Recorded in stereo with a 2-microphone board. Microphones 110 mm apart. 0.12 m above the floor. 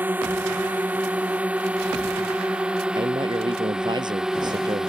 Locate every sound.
0.0 s a drone: 15° right (ahead or behind); by 4.9 s 5° right (ahead or behind)
3.0 s a man speaking: 40° right (ahead or behind)